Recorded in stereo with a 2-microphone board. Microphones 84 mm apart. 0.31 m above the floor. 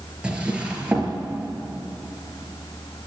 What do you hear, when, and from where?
0.2 s a drawer: 15° right (ahead or behind), 4 m